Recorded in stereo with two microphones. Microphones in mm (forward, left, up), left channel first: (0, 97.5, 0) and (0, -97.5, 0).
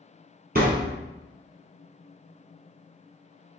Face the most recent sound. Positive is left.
turn(degrees=-50)  # may be behind; listen again after turning